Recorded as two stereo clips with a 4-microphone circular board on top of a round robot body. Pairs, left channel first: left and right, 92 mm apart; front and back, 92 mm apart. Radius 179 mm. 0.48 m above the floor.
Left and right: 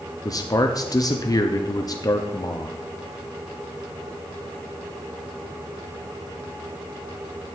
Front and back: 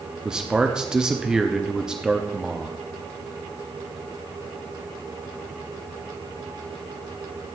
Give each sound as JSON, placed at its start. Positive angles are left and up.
{"t": 0.2, "sound": "a man speaking", "azimuth_deg": 100, "distance_m": 1.0}